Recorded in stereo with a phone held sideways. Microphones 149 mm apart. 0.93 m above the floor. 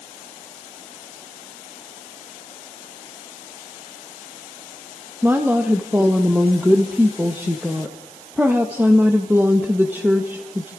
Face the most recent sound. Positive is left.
turn(degrees=-15)  # may be behind; listen again after turning